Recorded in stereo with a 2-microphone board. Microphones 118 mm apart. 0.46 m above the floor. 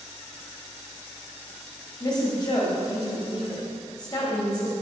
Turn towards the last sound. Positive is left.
turn(degrees=40)  # may be behind; listen again after turning